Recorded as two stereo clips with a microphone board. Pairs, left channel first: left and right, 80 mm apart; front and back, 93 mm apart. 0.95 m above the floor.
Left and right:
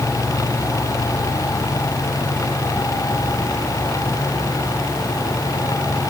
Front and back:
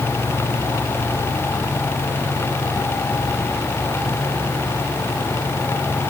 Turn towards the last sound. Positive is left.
No sound to turn to.